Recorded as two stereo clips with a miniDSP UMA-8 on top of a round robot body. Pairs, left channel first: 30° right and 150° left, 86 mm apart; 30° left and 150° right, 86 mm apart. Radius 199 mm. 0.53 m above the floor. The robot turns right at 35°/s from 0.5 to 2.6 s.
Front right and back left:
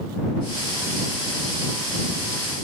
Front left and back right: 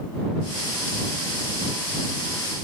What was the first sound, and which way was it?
Only background noise.